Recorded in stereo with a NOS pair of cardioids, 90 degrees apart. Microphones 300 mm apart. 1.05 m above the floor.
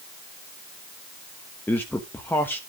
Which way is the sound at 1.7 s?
5° left.